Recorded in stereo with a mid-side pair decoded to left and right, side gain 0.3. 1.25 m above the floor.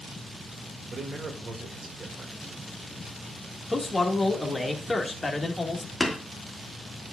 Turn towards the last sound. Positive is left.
turn(degrees=5)